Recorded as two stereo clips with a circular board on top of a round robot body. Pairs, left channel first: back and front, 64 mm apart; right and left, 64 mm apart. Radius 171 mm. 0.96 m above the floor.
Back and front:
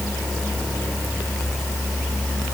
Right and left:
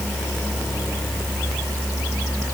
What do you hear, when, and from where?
Only background noise.